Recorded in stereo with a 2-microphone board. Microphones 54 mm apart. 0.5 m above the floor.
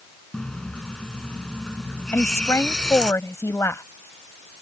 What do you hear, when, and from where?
0.3 s a running tap: 15° left (ahead or behind)
2.1 s a woman speaking: 65° left (ahead or behind)